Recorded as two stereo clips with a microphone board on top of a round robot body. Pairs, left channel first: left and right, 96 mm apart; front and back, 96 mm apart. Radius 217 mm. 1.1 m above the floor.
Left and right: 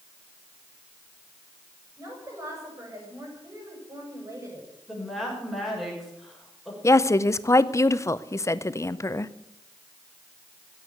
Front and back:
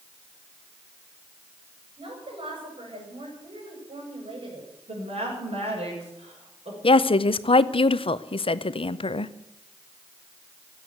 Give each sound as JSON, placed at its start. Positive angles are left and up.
{"t": 2.0, "sound": "a woman speaking", "azimuth_deg": -150, "distance_m": 6.0}
{"t": 4.9, "sound": "a woman speaking", "azimuth_deg": 180, "distance_m": 6.5}
{"t": 6.8, "sound": "a woman speaking", "azimuth_deg": 30, "distance_m": 0.7}